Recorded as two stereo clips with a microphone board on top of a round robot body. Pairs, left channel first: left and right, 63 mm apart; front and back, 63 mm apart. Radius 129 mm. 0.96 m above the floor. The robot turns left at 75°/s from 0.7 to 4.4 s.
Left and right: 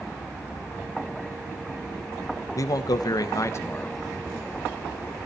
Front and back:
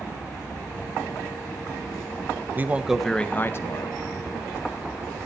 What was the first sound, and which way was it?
A man speaking, 120° left.